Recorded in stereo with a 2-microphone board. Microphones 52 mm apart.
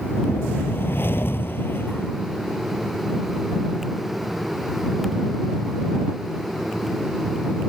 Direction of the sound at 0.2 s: 50° left (ahead or behind).